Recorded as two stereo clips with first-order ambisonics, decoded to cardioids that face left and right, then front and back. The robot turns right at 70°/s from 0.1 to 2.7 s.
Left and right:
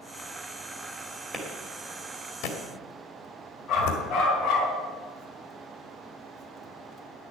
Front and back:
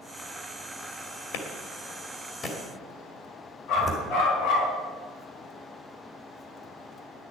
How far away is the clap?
About 2 m.